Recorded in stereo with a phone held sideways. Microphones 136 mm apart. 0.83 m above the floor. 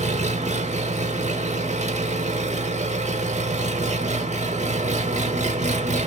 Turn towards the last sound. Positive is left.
turn(degrees=-65)  # may be behind; listen again after turning